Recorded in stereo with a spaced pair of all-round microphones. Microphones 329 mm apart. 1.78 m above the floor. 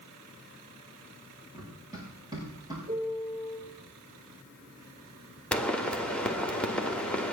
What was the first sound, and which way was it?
Running footsteps, 10° right (ahead or behind).